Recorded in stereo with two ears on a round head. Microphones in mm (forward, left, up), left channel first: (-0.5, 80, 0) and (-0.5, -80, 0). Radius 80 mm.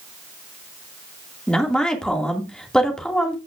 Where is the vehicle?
No vehicle in this recording.